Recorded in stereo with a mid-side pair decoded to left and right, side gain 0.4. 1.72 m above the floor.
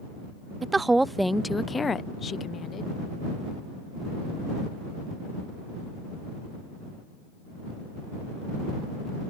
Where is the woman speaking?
35° right; by 2.9 s 65° left.